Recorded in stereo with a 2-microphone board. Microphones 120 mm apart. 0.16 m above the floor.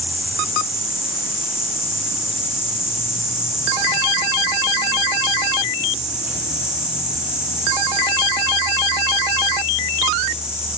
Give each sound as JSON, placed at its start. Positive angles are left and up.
{"t": 0.0, "sound": "an insect", "side_deg": -10, "distance_m": 4.0}